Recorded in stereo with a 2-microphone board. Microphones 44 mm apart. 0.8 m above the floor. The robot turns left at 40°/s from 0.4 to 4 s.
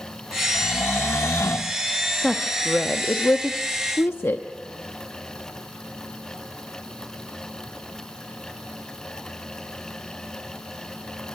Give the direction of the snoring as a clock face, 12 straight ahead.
8 o'clock.